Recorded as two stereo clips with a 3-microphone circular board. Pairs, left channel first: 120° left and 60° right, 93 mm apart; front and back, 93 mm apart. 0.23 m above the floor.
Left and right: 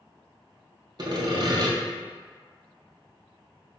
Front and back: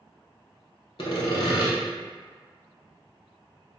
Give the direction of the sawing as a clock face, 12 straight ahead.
1 o'clock.